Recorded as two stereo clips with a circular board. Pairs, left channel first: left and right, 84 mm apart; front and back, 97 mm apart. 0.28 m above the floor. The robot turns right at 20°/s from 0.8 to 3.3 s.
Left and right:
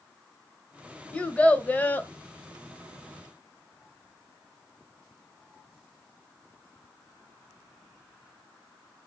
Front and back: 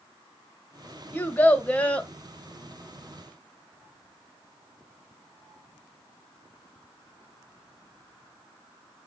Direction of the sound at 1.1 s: 35° left.